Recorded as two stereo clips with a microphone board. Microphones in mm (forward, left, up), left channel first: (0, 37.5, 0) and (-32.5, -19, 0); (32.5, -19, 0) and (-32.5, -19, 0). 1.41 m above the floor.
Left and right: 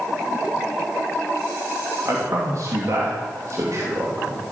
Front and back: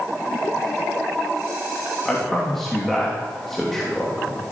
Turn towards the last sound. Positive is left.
turn(degrees=-85)